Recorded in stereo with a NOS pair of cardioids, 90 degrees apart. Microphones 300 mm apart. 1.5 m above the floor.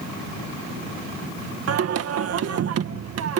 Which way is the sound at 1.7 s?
55° right.